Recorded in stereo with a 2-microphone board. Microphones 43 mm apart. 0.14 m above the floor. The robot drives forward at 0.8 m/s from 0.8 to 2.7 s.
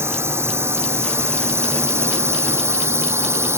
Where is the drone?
70° right (ahead or behind); by 3.6 s 75° right (ahead or behind).